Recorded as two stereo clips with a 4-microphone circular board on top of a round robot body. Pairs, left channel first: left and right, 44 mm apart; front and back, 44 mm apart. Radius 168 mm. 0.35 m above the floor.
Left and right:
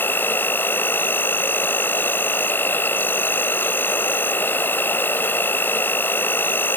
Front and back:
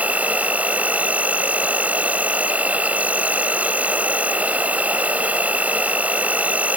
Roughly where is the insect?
Behind left.